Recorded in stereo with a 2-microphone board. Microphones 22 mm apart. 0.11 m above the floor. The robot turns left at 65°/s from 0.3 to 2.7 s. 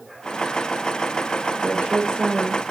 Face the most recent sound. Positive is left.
turn(degrees=-135)